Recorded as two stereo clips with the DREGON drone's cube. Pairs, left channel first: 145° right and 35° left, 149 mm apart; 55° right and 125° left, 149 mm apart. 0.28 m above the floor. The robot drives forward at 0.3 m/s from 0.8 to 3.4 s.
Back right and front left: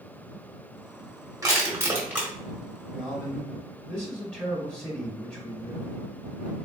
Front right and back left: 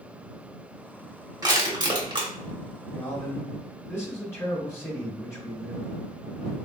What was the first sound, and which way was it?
Crushing, 80° left.